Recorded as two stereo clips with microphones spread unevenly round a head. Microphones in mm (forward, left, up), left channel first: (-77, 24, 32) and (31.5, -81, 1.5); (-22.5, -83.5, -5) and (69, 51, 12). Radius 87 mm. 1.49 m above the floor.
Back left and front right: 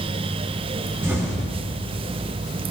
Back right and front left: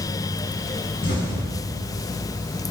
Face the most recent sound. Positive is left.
turn(degrees=-120)